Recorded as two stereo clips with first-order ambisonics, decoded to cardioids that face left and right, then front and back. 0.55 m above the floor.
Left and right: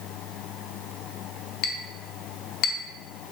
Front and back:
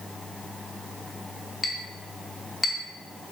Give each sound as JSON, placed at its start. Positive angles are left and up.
{"t": 1.6, "sound": "a clink", "azimuth_deg": 75, "distance_m": 0.5}